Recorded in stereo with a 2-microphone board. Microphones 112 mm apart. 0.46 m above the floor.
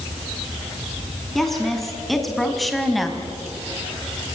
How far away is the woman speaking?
About 4 m.